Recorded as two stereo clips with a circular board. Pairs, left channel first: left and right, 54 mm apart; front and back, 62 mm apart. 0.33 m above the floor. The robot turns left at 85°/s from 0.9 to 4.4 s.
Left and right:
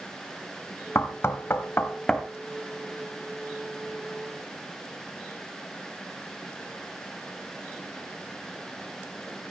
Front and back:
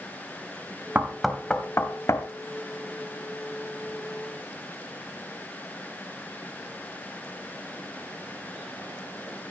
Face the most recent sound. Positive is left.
turn(degrees=-175)